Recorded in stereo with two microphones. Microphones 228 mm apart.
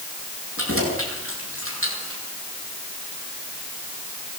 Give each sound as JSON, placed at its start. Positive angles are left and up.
{"t": 0.6, "sound": "keys jangling", "side_deg": -75, "distance_m": 9.5}